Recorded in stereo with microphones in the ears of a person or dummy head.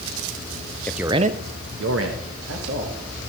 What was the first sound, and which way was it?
A man speaking, 10° left (ahead or behind).